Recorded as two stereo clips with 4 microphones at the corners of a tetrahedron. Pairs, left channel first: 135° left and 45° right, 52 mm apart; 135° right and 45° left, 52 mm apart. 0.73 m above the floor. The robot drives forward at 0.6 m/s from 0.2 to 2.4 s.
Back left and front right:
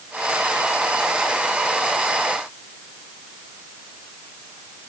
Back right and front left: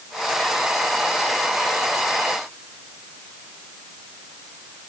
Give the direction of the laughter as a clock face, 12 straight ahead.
I don't hear laughter.